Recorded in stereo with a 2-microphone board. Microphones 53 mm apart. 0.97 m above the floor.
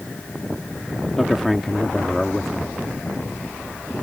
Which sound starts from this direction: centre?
A man speaking, at 1.2 s.